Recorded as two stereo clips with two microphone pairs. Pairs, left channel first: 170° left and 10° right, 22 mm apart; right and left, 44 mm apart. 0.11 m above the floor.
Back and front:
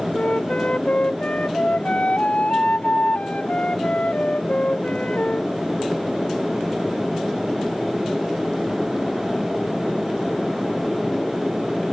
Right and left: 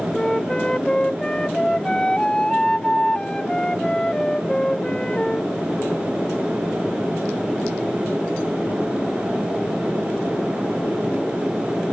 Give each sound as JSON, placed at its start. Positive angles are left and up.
{"t": 0.1, "sound": "a flute", "azimuth_deg": -165}